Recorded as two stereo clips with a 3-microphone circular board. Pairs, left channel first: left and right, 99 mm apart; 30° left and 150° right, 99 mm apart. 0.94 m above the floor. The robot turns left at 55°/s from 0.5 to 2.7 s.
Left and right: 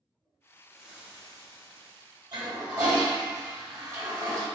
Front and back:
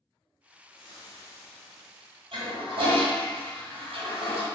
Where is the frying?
Straight ahead, 1.0 m; by 2.4 s 90° right, 1.0 m.